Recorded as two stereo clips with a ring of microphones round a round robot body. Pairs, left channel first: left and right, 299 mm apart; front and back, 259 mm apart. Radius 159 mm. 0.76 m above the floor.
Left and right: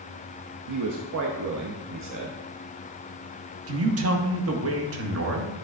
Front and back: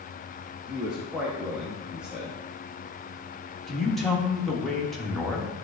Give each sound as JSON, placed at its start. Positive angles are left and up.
{"t": 0.7, "sound": "a man speaking", "azimuth_deg": -95, "distance_m": 0.8}
{"t": 3.7, "sound": "a man speaking", "azimuth_deg": -90, "distance_m": 1.1}